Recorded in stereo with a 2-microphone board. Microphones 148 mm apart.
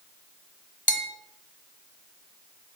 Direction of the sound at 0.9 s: 60° left (ahead or behind).